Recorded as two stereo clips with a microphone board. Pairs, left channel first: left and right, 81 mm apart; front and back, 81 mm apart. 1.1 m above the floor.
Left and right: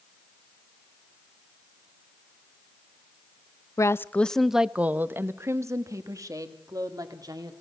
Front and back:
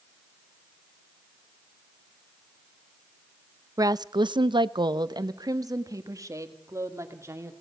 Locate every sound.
3.8 s a woman speaking: 135° left, 0.6 m; by 7.5 s 125° right, 2.5 m